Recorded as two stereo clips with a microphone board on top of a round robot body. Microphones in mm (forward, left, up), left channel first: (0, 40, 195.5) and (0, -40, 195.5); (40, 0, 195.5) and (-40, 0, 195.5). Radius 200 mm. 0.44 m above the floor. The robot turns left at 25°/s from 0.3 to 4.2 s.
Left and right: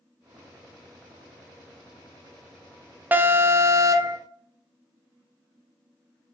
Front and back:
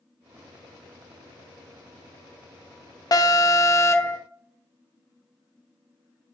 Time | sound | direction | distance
3.1 | an alarm | 25° right | 0.7 m